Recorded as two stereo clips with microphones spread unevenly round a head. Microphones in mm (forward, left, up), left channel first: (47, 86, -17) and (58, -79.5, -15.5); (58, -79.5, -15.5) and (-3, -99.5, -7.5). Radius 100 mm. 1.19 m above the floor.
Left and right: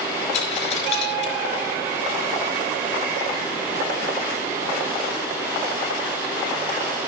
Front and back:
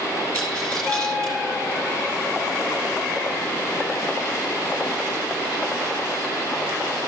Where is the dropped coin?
100° left, 4.5 m.